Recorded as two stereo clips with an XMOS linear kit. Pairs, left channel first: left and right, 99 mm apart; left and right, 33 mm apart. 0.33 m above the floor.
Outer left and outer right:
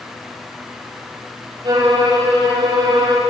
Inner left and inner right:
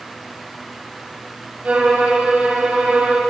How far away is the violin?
About 8 m.